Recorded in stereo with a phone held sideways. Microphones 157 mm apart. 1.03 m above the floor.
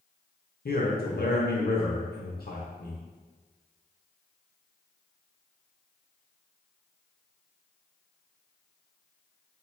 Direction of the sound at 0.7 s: 75° left (ahead or behind).